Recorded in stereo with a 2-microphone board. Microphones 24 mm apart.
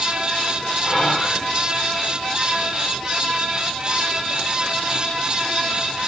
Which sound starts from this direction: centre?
Whispering, at 0.8 s.